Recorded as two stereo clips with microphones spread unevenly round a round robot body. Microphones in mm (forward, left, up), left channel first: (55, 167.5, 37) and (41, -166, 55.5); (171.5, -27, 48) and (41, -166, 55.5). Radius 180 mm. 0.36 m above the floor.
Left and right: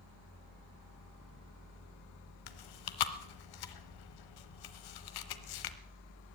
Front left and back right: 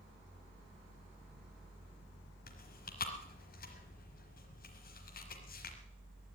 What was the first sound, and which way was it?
Chewing, 100° left.